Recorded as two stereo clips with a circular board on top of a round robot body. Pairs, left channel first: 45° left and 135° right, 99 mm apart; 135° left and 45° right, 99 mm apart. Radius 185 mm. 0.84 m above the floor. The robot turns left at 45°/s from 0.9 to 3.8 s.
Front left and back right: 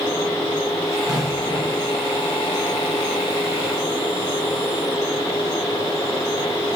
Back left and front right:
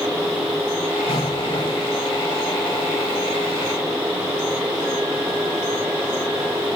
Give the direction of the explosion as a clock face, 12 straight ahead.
7 o'clock.